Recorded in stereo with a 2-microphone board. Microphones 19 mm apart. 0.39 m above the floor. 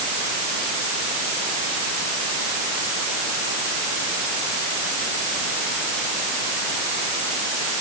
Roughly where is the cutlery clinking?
I don't hear cutlery clinking.